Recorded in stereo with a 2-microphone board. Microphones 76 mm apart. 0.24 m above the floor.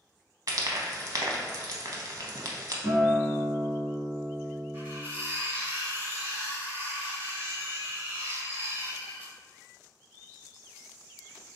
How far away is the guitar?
About 1.8 m.